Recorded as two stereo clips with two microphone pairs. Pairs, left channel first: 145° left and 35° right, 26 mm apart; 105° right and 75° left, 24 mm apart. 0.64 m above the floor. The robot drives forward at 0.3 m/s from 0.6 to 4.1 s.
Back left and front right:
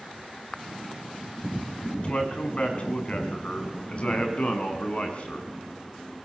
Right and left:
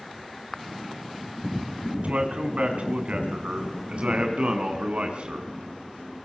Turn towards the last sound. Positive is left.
turn(degrees=100)